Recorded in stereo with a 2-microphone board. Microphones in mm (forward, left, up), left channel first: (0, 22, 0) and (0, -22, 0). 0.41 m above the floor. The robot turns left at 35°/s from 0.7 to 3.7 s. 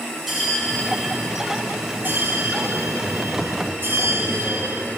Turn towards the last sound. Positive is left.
turn(degrees=-115)